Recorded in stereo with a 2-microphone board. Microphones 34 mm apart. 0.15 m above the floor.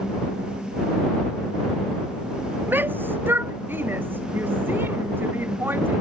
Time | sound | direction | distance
2.7 | a shout | 75° right (ahead or behind) | ?